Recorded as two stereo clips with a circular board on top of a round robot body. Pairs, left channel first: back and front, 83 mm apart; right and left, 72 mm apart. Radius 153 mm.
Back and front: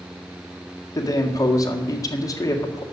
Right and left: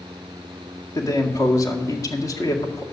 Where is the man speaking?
130° right, 1.8 m.